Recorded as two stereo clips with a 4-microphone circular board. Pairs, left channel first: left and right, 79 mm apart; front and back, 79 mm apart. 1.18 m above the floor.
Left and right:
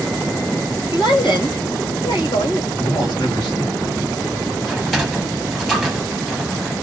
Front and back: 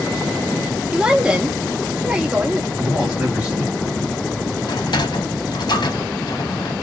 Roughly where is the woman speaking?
Left.